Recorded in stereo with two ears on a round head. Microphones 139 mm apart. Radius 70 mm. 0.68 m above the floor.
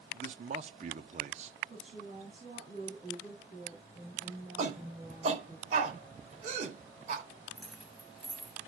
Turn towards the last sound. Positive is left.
turn(degrees=0)  # may be behind; listen again after turning